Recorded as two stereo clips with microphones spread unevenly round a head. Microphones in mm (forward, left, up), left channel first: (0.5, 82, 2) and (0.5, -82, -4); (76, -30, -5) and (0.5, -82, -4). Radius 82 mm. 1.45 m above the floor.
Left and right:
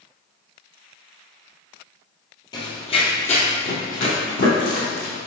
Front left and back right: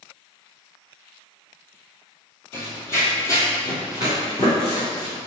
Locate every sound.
2.5 s running footsteps: 70° left, 1.6 m; by 5.2 s 85° left, 3 m